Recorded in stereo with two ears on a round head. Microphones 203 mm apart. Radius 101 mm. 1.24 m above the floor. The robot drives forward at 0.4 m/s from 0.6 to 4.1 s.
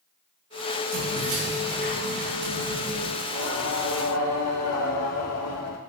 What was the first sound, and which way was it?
Keys jangling, 75° right (ahead or behind).